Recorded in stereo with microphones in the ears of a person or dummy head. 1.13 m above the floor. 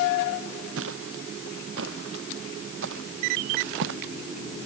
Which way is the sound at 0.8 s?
80° right.